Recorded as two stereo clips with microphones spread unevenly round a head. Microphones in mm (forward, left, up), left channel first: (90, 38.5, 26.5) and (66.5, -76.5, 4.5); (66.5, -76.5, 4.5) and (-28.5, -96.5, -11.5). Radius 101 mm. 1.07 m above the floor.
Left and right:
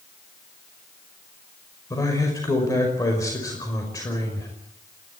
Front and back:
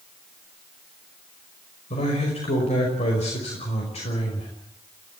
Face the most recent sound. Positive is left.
turn(degrees=15)